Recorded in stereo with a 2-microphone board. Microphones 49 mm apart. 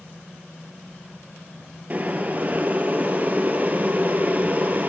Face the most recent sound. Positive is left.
turn(degrees=-35)  # may be behind; listen again after turning